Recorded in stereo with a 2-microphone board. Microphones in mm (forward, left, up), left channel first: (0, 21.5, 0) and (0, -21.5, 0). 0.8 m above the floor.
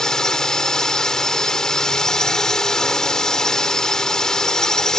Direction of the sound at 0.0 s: 15° left (ahead or behind).